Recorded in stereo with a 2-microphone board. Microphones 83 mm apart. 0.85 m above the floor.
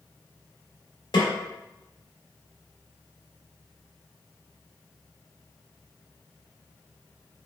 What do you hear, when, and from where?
1.1 s a snare drum: 70° left (ahead or behind), 1.6 m